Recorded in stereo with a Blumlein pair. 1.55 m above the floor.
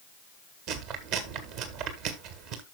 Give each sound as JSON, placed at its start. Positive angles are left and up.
{"t": 0.7, "sound": "chewing", "azimuth_deg": -40, "distance_m": 1.7}